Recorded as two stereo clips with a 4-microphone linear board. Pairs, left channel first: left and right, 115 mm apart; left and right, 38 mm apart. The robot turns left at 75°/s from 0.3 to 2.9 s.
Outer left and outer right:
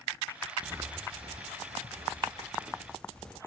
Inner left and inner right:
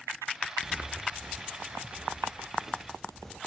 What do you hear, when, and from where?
0.6 s footsteps: 15° right (ahead or behind), 2 m; by 3.4 s 10° left (ahead or behind), 4 m